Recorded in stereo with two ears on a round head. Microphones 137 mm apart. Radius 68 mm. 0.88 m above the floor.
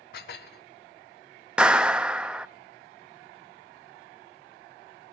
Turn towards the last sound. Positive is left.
turn(degrees=-5)  # may be behind; listen again after turning